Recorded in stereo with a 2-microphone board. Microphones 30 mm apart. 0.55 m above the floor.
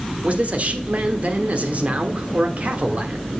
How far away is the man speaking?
About 1.1 m.